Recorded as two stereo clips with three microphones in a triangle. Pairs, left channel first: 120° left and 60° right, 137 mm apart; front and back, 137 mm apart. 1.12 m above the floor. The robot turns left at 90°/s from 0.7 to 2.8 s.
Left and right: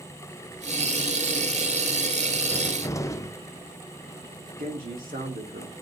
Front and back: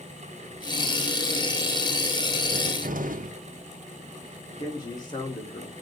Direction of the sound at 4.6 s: 55° right.